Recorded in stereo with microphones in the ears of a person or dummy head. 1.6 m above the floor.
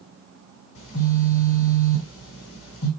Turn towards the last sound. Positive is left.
turn(degrees=80)